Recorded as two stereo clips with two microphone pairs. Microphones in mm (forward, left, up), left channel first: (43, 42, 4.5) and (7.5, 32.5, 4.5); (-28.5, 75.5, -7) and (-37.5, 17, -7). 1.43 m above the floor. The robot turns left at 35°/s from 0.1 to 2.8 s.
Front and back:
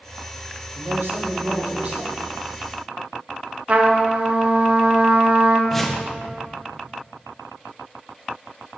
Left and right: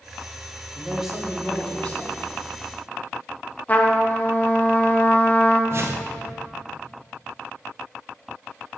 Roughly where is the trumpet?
Behind left.